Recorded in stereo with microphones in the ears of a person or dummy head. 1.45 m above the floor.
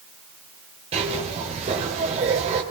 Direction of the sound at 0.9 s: 35° right (ahead or behind).